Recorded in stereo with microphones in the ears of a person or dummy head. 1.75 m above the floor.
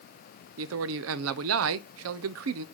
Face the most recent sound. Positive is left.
turn(degrees=-75)  # may be behind; listen again after turning